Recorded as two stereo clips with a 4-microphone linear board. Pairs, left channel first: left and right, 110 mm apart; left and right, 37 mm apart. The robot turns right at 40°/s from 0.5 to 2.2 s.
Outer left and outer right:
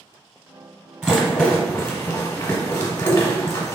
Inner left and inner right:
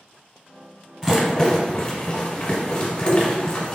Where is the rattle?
10° right (ahead or behind), 0.9 m; by 3.8 s 30° left (ahead or behind), 0.9 m.